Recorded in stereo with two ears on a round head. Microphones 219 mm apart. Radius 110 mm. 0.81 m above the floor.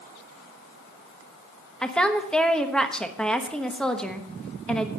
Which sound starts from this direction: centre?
A woman speaking, at 1.8 s.